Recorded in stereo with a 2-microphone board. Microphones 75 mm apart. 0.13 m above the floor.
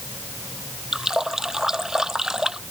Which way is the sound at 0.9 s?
5° right (ahead or behind).